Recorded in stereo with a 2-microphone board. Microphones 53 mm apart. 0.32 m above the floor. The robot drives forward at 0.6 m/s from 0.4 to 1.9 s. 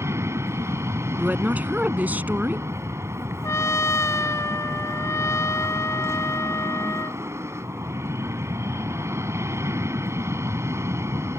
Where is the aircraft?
60° right (ahead or behind).